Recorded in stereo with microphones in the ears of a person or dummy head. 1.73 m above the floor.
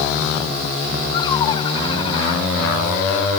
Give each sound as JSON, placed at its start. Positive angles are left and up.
{"t": 1.1, "sound": "laughter", "side_deg": 30}